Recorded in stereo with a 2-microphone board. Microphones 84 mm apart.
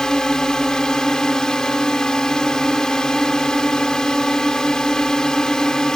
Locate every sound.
0.0 s a drone: 10° left (ahead or behind)